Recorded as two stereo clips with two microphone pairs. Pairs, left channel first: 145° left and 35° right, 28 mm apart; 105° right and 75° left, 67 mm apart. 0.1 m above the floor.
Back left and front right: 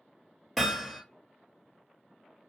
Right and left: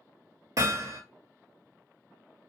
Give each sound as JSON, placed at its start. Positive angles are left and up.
{"t": 0.6, "sound": "hammering", "azimuth_deg": 65, "distance_m": 1.2}